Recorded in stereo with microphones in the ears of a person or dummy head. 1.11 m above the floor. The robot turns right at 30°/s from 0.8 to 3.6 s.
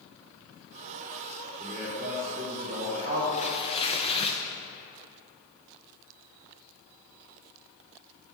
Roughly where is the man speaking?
Behind.